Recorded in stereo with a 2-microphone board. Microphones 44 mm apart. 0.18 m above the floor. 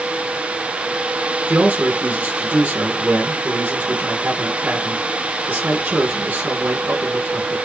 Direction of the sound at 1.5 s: 40° right (ahead or behind).